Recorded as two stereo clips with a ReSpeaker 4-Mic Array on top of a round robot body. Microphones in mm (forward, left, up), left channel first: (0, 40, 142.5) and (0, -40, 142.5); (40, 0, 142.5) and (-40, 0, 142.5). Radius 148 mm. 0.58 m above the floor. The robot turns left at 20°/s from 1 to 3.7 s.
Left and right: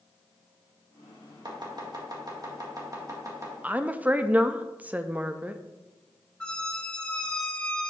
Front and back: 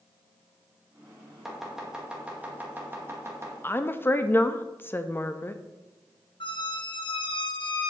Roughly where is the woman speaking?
Ahead right.